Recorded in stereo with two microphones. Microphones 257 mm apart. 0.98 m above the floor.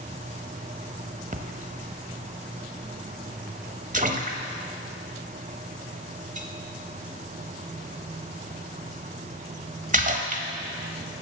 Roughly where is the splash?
Right.